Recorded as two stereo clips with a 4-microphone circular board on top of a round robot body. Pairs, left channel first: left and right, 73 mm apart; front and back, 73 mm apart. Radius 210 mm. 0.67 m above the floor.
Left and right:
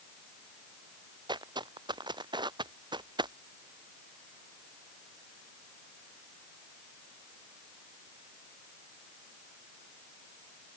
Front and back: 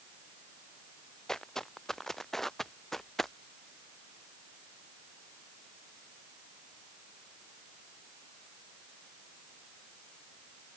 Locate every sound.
1.3 s footsteps: 80° right; by 3.3 s 85° right